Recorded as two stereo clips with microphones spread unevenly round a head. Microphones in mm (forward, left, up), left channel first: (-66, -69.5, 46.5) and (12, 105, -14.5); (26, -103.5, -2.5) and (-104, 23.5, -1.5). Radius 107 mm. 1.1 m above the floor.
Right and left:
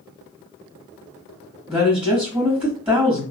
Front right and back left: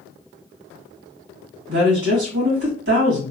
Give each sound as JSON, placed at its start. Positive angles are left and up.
{"t": 1.7, "sound": "a woman speaking", "azimuth_deg": 155, "distance_m": 1.7}